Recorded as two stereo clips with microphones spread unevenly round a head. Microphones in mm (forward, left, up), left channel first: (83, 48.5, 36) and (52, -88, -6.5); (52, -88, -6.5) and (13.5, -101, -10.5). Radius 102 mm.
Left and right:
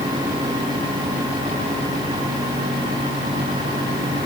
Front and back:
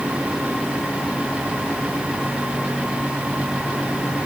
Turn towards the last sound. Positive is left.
No sound to turn to.